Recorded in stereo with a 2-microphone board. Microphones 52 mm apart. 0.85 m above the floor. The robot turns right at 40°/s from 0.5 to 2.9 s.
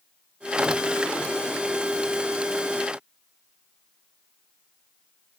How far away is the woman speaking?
No woman speaking in this recording.